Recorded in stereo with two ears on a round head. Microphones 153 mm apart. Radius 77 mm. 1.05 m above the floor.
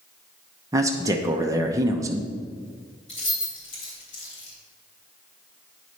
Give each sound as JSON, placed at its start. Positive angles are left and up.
{"t": 0.7, "sound": "a man speaking", "side_deg": -20, "distance_m": 0.7}
{"t": 3.1, "sound": "keys jangling", "side_deg": 35, "distance_m": 3.0}